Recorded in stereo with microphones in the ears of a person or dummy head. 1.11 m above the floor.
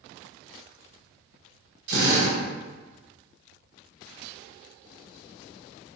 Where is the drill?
65° right (ahead or behind), 1.2 m.